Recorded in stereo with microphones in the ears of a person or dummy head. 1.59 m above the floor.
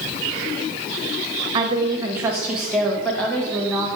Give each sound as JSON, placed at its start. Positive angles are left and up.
{"t": 1.5, "sound": "a woman speaking", "side_deg": -25, "distance_m": 1.4}